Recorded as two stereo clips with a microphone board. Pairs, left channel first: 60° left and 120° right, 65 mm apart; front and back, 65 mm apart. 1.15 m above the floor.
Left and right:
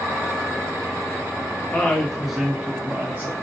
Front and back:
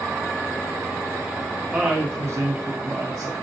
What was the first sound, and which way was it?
A woman speaking, 110° left.